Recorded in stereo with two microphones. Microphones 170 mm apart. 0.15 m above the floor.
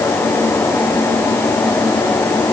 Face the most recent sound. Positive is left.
No sound to turn to.